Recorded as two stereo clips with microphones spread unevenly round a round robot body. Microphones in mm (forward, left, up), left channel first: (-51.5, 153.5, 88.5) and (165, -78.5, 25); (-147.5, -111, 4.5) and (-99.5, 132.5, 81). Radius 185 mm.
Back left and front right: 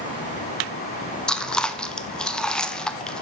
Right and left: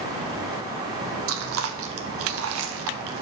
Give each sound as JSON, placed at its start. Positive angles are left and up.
{"t": 1.3, "sound": "chewing", "azimuth_deg": 35, "distance_m": 0.6}